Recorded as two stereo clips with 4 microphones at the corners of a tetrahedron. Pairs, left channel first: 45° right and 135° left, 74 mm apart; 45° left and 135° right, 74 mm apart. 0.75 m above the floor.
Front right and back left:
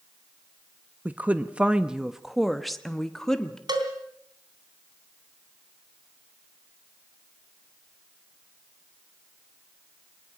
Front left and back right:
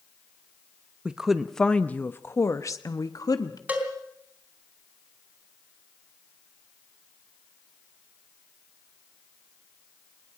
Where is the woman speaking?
165° left, 0.9 m; by 3.6 s 35° left, 1.7 m.